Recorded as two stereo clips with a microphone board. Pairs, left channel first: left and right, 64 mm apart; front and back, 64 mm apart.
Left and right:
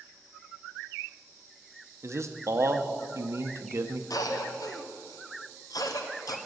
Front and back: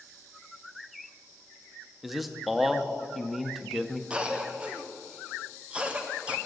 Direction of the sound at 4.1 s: 110° left.